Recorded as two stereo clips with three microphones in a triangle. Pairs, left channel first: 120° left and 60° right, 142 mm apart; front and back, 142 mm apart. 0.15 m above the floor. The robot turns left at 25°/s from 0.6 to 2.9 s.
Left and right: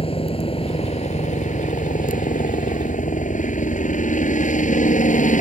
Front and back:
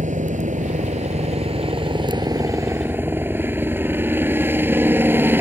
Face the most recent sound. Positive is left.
turn(degrees=105)